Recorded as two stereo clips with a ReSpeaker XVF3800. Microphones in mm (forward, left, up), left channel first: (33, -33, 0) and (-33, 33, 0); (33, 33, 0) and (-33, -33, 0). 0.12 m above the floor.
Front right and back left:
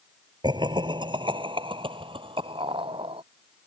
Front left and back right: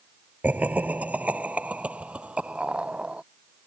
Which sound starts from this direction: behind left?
Laughter, at 0.4 s.